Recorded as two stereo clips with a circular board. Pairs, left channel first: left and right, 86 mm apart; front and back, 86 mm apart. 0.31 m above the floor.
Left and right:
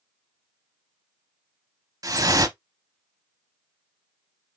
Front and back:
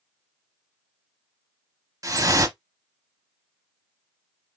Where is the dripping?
135° right, 0.6 m.